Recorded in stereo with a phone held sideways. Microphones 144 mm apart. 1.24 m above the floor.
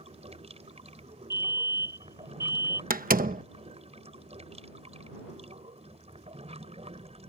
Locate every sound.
0.0 s running water: 50° right (ahead or behind)
1.3 s a fire alarm: 20° right (ahead or behind)
2.9 s a door slam: 85° right